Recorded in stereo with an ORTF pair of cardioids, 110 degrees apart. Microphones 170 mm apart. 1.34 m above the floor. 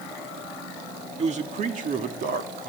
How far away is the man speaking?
About 2.5 m.